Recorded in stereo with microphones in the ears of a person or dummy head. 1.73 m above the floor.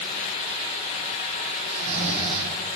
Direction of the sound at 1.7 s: 70° right (ahead or behind).